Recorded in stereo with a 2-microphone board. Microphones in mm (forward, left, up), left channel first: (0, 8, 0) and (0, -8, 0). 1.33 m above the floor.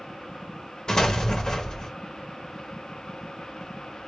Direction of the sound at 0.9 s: 50° left (ahead or behind).